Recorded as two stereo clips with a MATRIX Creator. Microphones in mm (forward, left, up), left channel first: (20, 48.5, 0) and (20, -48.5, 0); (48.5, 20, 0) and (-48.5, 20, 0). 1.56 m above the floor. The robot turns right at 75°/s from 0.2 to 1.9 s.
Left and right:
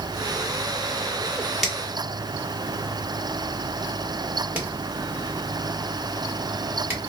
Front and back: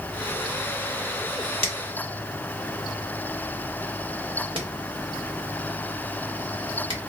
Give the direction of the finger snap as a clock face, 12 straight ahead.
6 o'clock.